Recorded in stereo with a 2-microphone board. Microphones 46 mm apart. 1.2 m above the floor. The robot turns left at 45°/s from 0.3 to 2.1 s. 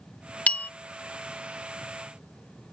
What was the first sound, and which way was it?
A bell, 35° left (ahead or behind).